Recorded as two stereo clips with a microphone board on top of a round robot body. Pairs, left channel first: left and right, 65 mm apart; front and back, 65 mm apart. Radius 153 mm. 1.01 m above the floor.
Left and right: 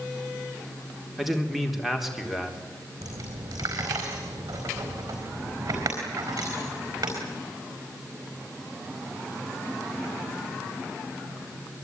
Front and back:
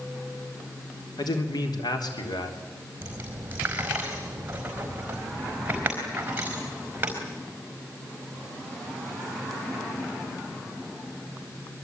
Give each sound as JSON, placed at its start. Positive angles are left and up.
{"t": 1.2, "sound": "a man speaking", "azimuth_deg": 0, "distance_m": 3.5}
{"t": 3.0, "sound": "a dropped coin", "azimuth_deg": -115, "distance_m": 4.5}